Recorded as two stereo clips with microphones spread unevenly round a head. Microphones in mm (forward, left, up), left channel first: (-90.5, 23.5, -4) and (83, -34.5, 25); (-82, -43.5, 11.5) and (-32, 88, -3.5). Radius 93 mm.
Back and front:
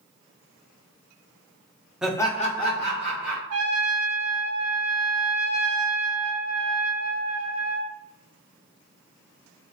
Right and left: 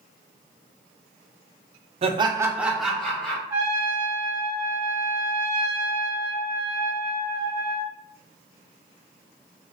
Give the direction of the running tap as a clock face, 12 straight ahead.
No running tap in this recording.